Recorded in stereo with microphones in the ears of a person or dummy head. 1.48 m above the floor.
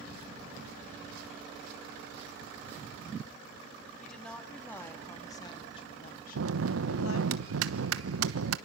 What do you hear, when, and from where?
4.0 s a woman speaking: centre (ahead or behind), 3.5 m; by 7.3 s 90° left, 1.7 m
6.3 s a bell: 80° right, 1.1 m